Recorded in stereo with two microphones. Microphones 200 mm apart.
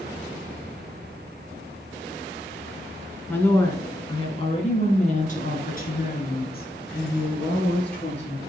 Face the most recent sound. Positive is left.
turn(degrees=60)  # may be behind; listen again after turning